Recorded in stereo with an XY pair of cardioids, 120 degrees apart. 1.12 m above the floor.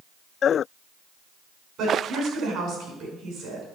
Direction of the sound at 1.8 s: 65° right.